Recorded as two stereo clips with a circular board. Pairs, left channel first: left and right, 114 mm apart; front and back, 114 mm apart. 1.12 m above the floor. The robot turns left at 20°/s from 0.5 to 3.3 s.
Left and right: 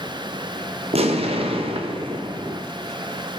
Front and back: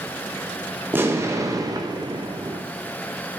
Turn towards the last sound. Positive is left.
turn(degrees=-155)